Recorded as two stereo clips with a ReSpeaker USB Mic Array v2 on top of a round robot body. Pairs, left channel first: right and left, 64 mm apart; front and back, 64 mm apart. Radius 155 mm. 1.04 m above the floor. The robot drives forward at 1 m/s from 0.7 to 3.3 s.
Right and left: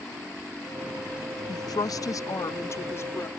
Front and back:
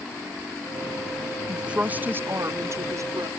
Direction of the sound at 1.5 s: 100° right.